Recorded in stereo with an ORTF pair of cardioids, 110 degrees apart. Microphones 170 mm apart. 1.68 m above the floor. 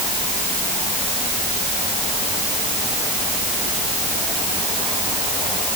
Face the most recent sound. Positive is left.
No sound to turn to.